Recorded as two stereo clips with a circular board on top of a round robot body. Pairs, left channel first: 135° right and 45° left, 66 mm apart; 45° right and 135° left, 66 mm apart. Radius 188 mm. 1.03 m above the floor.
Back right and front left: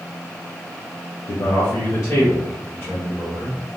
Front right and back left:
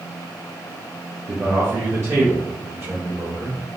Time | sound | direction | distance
1.3 | a man speaking | 155° right | 0.5 m